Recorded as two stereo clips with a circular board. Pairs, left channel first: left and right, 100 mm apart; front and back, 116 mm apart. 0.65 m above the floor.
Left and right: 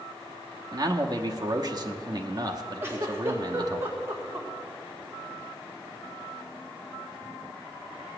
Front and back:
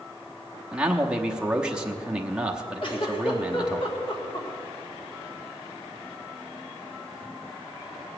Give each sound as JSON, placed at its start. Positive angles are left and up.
{"t": 0.7, "sound": "a man speaking", "azimuth_deg": -100, "distance_m": 1.0}
{"t": 2.8, "sound": "a giggle", "azimuth_deg": -25, "distance_m": 1.9}